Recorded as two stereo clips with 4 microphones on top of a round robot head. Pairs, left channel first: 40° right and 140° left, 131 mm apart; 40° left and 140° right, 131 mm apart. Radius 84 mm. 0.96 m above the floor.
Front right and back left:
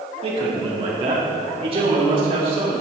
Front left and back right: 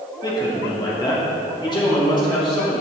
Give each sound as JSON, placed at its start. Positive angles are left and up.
{"t": 0.2, "sound": "a man speaking", "azimuth_deg": 100, "distance_m": 2.5}